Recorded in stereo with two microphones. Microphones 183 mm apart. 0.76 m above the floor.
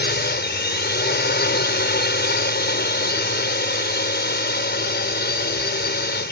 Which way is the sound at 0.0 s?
65° left (ahead or behind).